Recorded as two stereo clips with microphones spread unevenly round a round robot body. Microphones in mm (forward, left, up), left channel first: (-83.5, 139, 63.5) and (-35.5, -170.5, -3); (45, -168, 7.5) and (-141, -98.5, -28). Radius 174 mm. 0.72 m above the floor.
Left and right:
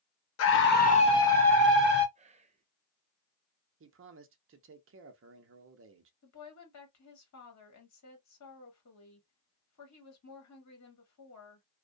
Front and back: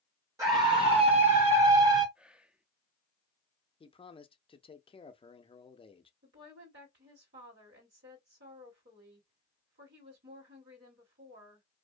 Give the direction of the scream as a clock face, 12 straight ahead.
8 o'clock.